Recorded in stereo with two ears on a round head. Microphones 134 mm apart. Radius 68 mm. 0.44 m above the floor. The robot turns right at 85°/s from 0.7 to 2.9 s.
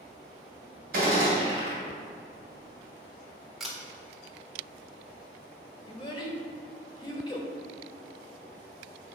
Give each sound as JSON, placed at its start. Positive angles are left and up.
{"t": 0.9, "sound": "a gunshot", "azimuth_deg": -85, "distance_m": 2.5}
{"t": 3.6, "sound": "a camera shutter", "side_deg": 0, "distance_m": 1.3}
{"t": 5.9, "sound": "a child speaking", "side_deg": 30, "distance_m": 1.3}